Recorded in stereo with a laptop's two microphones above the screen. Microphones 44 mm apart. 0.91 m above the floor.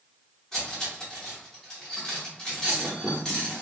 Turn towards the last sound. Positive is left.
turn(degrees=15)  # may be behind; listen again after turning